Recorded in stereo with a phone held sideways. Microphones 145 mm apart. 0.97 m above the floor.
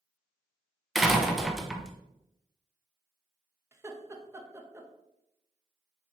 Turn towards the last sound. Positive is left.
turn(degrees=-20)  # may be behind; listen again after turning